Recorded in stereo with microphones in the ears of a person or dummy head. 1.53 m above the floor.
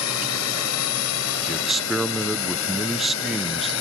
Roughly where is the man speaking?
Centre.